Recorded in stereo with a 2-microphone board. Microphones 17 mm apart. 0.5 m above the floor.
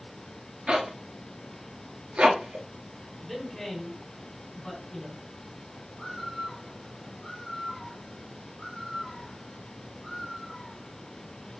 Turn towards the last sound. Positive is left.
turn(degrees=20)  # may be behind; listen again after turning